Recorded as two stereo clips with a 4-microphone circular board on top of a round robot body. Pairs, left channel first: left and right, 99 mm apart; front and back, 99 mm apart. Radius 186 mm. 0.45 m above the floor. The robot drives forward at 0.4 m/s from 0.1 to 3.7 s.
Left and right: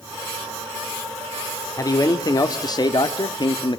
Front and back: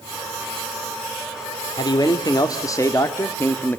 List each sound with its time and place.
1.8 s a man speaking: 40° left, 1.9 m; by 3.8 s 65° left, 1.5 m